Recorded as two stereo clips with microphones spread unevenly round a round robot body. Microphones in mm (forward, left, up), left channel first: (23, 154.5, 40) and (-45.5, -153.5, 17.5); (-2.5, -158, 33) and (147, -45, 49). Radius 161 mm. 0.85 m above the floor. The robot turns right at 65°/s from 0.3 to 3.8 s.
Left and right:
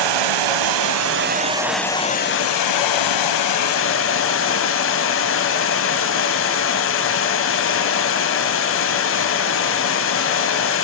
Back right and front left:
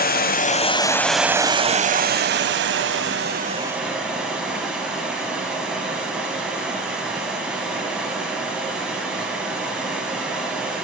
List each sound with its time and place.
0.0 s running water: 105° right, 1.2 m; by 10.8 s 120° left, 1.2 m